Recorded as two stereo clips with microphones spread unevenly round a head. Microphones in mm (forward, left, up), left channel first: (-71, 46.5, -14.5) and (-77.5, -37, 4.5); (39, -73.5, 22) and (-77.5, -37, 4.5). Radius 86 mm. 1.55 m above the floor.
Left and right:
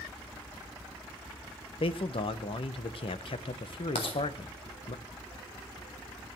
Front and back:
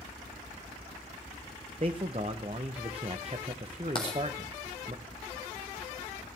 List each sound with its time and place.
1.8 s a man speaking: 100° left, 1.1 m
4.0 s writing: 40° left, 1.8 m